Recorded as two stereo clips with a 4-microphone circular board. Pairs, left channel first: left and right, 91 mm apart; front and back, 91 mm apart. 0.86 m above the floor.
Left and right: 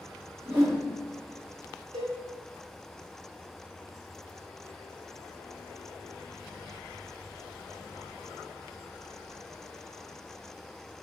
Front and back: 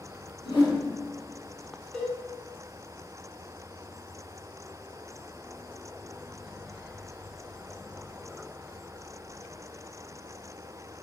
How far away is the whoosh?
About 1.5 m.